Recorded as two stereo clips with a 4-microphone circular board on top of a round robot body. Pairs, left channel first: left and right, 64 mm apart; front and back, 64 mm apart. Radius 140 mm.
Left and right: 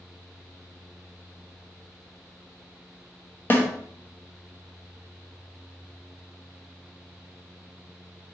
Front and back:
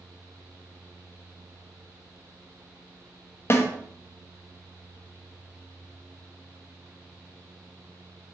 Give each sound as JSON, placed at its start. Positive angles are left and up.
{"t": 3.5, "sound": "a snare drum", "azimuth_deg": 40, "distance_m": 1.0}